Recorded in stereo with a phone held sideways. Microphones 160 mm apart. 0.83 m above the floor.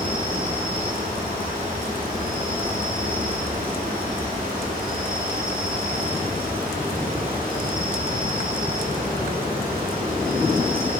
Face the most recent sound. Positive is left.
turn(degrees=-65)  # may be behind; listen again after turning